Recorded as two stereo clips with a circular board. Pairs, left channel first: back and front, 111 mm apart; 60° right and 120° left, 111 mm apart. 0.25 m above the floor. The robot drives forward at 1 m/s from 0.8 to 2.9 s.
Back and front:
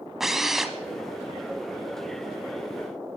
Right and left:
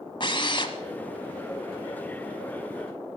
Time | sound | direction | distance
0.2 | a drill | 85° right | 1.2 m